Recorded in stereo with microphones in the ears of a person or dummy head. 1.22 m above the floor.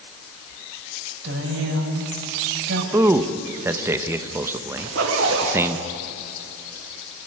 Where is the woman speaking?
75° right (ahead or behind), 6 m.